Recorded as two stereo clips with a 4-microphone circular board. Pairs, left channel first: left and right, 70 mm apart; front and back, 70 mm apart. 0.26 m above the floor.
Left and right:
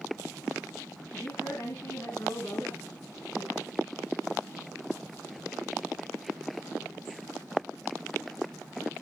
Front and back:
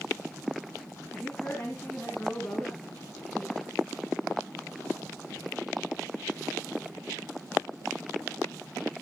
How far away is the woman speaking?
About 2 m.